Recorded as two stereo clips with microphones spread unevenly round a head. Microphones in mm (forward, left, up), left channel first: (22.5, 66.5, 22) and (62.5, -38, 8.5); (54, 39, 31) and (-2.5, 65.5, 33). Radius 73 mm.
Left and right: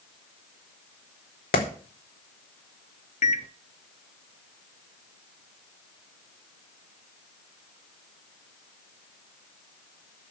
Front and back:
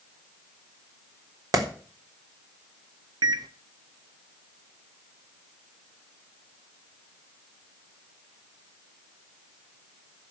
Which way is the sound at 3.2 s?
160° left.